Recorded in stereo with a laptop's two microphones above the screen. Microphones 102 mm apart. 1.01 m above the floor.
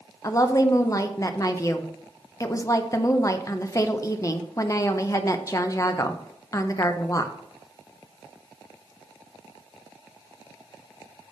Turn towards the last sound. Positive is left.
turn(degrees=30)  # may be behind; listen again after turning